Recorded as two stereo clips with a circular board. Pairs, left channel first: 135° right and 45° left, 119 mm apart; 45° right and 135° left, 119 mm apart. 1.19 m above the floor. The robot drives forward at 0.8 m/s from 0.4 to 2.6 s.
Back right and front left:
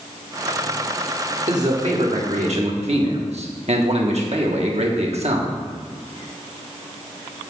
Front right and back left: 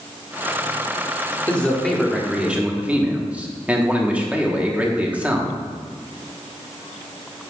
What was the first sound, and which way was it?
A man speaking, 35° left.